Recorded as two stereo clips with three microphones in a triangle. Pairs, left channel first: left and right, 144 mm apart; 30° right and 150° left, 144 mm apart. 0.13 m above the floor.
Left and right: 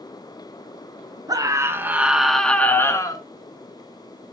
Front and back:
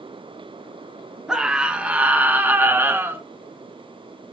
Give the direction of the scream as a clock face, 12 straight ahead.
4 o'clock.